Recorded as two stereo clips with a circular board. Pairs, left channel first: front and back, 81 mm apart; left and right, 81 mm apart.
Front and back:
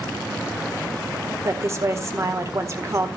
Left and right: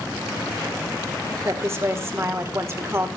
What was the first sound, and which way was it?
A woman speaking, 135° right.